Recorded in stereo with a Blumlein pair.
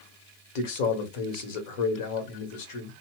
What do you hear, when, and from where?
0.6 s a man speaking: 45° left, 1.1 m